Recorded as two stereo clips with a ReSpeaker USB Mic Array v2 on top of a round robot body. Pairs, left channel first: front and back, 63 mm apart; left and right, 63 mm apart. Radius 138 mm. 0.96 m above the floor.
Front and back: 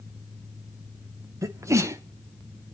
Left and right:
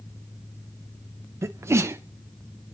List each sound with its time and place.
1.4 s a sneeze: 140° right, 0.6 m